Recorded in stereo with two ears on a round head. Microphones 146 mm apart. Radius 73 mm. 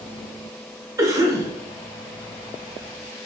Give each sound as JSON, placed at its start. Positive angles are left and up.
{"t": 1.0, "sound": "a cough", "side_deg": -20, "distance_m": 0.6}